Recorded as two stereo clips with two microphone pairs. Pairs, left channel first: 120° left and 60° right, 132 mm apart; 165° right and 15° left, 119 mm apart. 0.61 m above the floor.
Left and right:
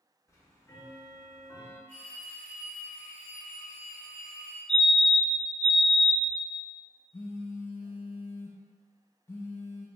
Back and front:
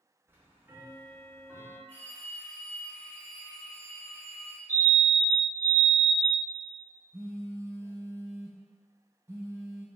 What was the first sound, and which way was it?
Ticking, 70° left.